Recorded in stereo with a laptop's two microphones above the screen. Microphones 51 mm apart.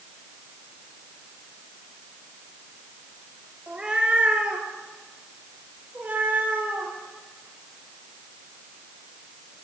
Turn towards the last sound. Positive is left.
turn(degrees=-35)  # may be behind; listen again after turning